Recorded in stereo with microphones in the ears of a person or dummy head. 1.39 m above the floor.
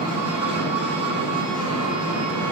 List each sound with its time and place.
0.0 s an engine running: 35° right (ahead or behind), 8.5 m